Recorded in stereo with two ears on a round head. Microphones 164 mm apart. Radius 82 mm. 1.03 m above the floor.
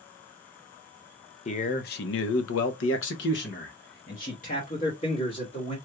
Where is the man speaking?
35° left (ahead or behind), 0.7 m.